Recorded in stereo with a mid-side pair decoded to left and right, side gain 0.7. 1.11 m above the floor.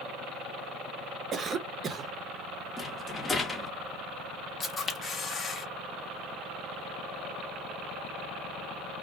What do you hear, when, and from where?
1.3 s a cough: 35° right, 0.6 m
2.8 s a rattle: 20° left, 0.8 m
4.6 s a camera shutter: 25° left, 0.9 m